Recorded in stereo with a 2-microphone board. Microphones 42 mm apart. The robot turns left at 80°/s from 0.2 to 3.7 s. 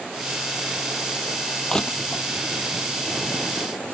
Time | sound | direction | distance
1.7 | crushing | 10° left (ahead or behind) | ?